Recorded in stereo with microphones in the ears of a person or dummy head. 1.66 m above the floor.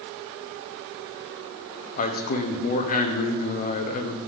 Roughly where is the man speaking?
Left.